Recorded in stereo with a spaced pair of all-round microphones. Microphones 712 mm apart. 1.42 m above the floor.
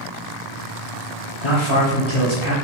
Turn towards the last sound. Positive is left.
turn(degrees=40)  # may be behind; listen again after turning